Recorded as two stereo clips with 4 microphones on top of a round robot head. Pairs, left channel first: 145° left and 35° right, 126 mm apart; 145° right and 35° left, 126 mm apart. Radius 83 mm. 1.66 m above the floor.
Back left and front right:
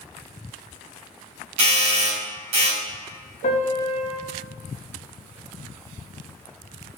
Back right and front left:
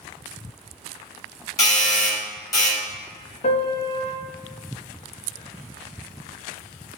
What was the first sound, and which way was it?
A doorbell, 80° right.